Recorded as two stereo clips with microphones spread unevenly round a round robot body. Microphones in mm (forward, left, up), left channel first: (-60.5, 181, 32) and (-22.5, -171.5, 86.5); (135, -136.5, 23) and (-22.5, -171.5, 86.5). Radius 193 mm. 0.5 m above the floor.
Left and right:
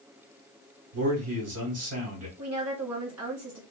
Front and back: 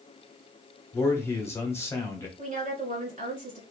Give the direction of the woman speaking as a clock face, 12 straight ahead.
4 o'clock.